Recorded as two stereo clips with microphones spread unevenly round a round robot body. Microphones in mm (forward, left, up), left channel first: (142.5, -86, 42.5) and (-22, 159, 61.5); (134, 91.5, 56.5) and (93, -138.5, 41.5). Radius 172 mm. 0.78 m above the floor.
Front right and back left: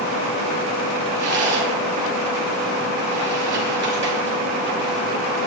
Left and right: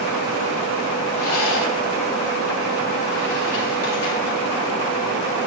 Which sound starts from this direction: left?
A rattle, at 1.1 s.